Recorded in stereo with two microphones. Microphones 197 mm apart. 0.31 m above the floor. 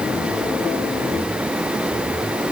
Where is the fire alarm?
No fire alarm in this recording.